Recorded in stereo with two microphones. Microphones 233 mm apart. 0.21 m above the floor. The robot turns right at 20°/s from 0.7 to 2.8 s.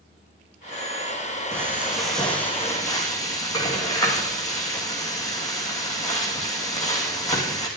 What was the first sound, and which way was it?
Frying, 10° right (ahead or behind).